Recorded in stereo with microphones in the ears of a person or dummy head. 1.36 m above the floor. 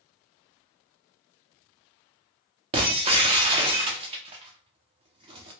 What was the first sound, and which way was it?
Breaking glass, 35° right (ahead or behind).